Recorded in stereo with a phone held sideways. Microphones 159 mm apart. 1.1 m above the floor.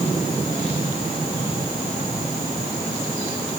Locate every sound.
Only background noise.